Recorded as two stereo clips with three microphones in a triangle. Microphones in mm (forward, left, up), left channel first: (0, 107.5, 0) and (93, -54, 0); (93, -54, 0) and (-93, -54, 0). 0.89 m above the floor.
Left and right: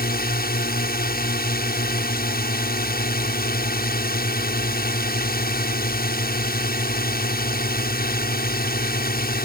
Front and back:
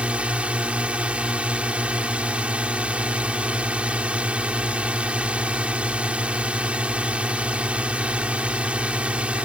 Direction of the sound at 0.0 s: 95° left.